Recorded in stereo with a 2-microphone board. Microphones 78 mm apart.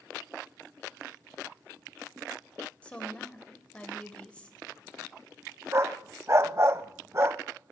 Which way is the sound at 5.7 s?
35° right (ahead or behind).